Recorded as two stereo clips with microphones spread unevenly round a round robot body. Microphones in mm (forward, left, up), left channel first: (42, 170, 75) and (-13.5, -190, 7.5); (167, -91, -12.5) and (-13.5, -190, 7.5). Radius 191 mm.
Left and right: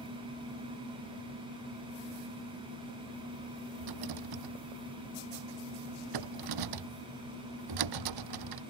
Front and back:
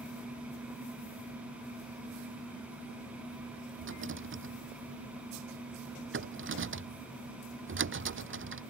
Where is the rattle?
130° right.